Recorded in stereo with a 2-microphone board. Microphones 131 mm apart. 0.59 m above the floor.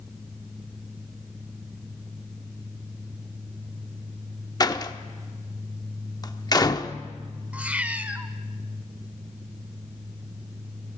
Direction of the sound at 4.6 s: 30° left (ahead or behind).